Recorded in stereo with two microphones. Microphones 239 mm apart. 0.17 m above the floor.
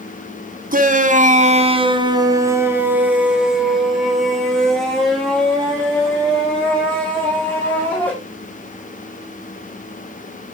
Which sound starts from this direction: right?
A shout, at 0.7 s.